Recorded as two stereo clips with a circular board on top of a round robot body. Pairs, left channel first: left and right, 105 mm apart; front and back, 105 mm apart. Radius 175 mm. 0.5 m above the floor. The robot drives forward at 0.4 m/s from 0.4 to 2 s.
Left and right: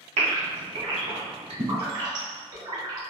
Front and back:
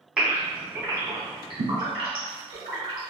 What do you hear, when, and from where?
0.2 s a gasp: 95° right, 0.7 m; by 3.1 s 140° right, 1.0 m